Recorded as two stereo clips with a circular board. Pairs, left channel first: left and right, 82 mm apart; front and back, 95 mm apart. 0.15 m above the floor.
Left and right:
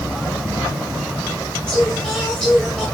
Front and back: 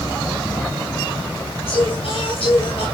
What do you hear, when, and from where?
1.7 s singing: 10° left, 9.5 m